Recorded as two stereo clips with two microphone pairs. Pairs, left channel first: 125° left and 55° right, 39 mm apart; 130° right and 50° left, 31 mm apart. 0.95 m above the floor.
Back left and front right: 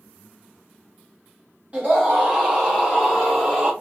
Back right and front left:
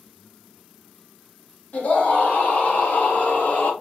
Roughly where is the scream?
Right.